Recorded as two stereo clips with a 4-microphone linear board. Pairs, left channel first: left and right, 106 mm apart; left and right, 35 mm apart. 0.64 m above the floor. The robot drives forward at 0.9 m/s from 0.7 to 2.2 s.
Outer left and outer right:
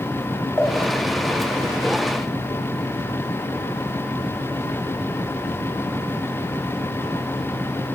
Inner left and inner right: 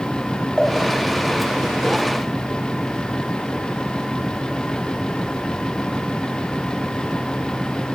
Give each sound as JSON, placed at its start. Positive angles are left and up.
{"t": 0.6, "sound": "a pop", "side_deg": 20, "distance_m": 2.5}